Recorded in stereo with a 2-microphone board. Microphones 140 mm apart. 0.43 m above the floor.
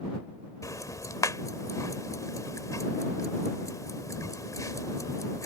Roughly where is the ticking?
Left.